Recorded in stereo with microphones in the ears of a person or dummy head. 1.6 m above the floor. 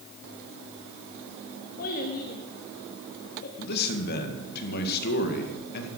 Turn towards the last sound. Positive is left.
turn(degrees=55)  # may be behind; listen again after turning